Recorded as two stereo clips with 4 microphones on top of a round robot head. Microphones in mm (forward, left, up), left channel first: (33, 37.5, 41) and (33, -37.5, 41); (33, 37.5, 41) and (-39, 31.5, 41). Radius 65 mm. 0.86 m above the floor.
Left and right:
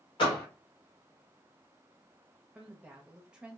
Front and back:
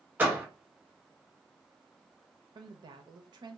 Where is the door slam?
120° left, 1.5 m.